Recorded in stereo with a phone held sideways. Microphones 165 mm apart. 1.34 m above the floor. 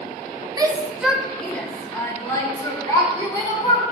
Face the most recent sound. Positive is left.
turn(degrees=25)  # may be behind; listen again after turning